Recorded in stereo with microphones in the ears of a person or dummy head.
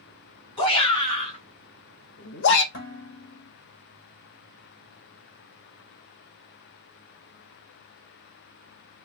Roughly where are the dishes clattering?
Left.